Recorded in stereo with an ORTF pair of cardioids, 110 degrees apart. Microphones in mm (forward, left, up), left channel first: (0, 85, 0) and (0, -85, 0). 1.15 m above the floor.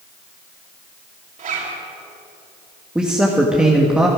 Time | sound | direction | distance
1.4 | a zipper | 50° right | 4.5 m
3.0 | a man speaking | 5° right | 1.5 m